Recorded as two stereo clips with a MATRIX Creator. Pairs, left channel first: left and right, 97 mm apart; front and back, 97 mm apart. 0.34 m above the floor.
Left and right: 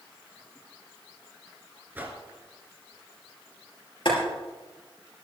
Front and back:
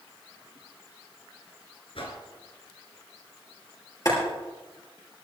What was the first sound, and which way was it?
A whoosh, 20° right.